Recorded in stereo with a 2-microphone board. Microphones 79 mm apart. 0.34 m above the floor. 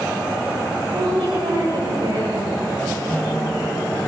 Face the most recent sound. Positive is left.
turn(degrees=20)  # may be behind; listen again after turning